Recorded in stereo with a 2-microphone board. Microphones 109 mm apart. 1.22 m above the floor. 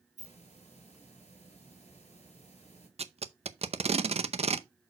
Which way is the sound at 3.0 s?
65° right (ahead or behind).